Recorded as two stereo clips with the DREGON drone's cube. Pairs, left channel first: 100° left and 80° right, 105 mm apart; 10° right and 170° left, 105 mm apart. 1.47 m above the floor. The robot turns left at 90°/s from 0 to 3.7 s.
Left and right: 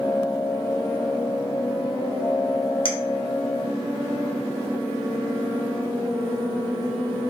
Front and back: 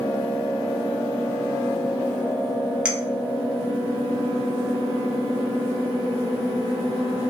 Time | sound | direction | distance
2.9 | a clink | 95° left | 0.6 m